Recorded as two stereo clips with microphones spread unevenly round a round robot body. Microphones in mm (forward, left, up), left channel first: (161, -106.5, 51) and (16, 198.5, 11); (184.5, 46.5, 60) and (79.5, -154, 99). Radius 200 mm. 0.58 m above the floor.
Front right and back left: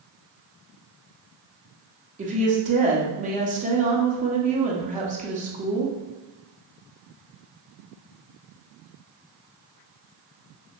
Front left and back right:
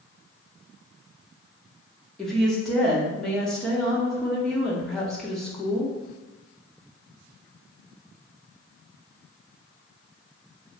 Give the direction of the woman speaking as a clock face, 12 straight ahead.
8 o'clock.